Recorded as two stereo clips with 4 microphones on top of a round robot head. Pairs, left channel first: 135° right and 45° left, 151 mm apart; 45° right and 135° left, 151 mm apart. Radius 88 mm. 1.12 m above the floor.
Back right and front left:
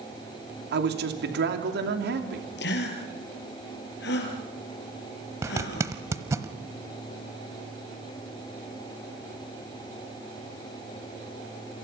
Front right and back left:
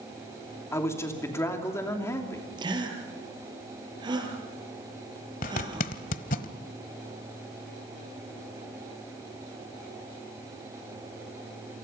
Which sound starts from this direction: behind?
A gasp, at 2.6 s.